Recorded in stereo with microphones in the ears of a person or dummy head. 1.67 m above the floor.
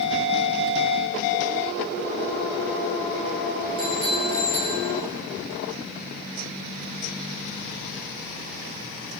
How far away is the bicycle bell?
About 3 m.